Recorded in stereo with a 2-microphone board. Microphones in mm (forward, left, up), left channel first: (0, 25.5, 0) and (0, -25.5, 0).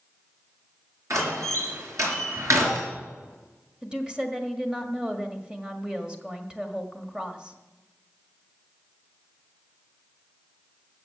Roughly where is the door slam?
Right.